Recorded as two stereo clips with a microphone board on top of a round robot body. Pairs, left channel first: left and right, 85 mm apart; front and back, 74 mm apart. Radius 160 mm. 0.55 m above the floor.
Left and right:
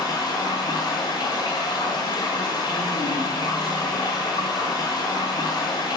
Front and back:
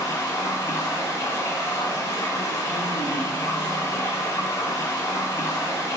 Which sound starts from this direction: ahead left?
Running water, at 0.0 s.